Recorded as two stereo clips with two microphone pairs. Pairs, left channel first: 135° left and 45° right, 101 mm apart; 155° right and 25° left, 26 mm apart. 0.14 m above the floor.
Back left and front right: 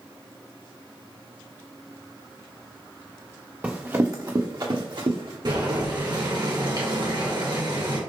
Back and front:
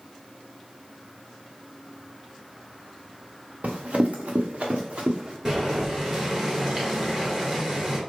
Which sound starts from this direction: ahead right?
Boiling, at 5.5 s.